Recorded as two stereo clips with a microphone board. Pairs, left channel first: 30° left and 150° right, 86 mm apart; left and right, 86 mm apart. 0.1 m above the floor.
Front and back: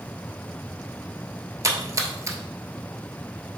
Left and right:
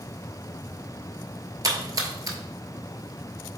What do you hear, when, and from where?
1.6 s a splash: 115° right, 0.8 m